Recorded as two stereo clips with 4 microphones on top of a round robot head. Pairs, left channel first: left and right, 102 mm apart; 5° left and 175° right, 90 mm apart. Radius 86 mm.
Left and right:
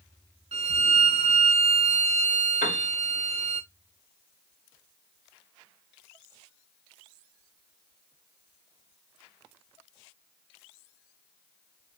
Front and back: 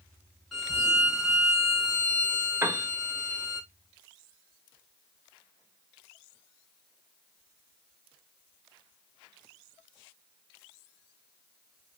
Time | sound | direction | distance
0.5 | a violin | 85° right | 0.8 m
2.6 | a piano | 120° left | 0.7 m